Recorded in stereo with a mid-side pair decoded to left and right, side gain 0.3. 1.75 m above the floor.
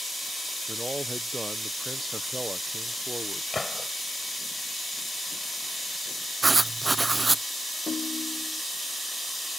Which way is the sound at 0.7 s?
20° right.